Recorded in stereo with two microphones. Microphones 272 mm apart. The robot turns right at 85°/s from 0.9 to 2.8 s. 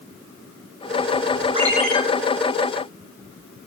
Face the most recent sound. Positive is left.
turn(degrees=85)